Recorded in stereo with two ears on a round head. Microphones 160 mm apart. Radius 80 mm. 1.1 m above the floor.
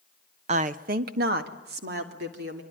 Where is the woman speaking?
35° right (ahead or behind), 0.8 m; by 2.6 s 60° right (ahead or behind), 3.5 m.